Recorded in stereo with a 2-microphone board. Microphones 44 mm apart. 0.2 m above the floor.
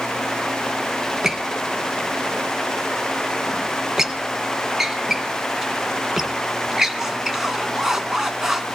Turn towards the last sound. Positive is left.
turn(degrees=-10)  # may be behind; listen again after turning